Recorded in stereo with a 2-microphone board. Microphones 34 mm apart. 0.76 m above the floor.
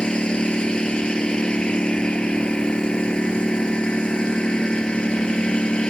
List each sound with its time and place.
0.0 s a lawn mower: 30° left (ahead or behind)